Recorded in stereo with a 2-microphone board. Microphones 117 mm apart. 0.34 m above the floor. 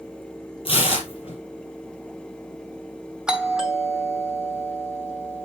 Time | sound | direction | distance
0.7 | tearing paper | 50° left (ahead or behind) | 4 m
3.3 | a doorbell | 5° right (ahead or behind) | 2.5 m